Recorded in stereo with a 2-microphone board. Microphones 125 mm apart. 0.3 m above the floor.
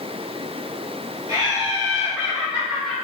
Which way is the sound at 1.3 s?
35° right (ahead or behind).